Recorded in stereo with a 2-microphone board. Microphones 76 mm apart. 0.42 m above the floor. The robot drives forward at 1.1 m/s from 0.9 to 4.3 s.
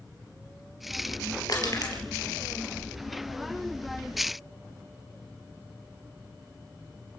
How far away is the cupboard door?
No cupboard door in this recording.